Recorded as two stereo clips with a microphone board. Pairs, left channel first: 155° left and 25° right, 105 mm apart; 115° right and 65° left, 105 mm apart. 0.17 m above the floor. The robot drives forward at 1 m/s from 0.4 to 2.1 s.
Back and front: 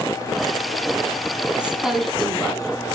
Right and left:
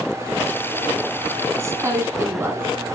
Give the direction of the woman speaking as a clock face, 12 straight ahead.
10 o'clock.